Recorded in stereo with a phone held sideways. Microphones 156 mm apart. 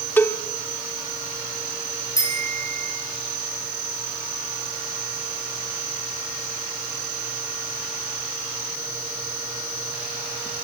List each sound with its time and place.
0.2 s a cowbell: 15° left (ahead or behind), 1.3 m
2.2 s a bicycle bell: 20° left (ahead or behind), 9 m